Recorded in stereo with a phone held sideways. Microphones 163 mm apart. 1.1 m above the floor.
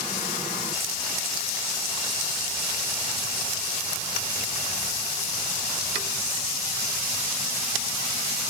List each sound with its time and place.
Only background noise.